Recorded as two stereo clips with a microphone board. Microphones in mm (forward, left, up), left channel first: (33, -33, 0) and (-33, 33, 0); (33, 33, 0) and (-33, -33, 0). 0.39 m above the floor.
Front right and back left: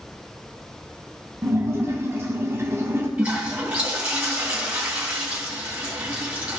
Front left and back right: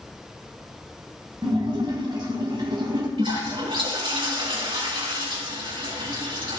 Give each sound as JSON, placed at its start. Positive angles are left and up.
{"t": 1.4, "sound": "a splash", "azimuth_deg": -165, "distance_m": 1.8}
{"t": 3.2, "sound": "a toilet flushing", "azimuth_deg": -150, "distance_m": 3.5}